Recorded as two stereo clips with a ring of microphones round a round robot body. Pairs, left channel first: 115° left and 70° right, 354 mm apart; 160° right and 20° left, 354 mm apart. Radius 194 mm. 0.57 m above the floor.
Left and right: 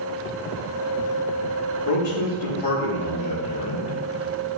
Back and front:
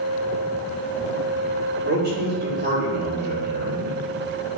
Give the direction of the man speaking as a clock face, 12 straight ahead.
9 o'clock.